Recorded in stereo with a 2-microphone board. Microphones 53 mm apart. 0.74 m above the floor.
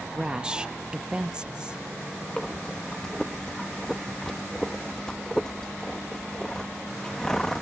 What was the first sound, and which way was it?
A woman speaking, 15° right (ahead or behind).